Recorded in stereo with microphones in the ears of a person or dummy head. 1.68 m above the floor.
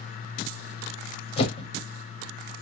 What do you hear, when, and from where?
1.4 s a whoosh: 35° left (ahead or behind), 0.7 m